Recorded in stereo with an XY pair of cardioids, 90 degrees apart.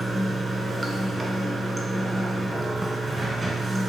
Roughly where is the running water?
Ahead.